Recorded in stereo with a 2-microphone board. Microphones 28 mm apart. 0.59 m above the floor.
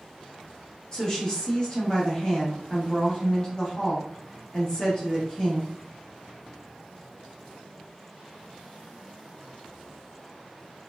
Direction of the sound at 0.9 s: 25° left (ahead or behind).